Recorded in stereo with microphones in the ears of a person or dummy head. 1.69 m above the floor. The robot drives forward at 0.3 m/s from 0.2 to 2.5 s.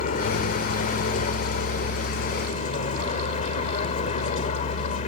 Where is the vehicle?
45° left (ahead or behind); by 5.1 s 40° left (ahead or behind).